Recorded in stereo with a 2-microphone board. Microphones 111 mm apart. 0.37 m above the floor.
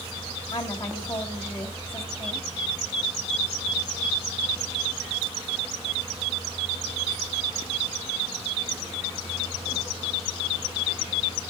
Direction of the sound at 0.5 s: 35° left (ahead or behind).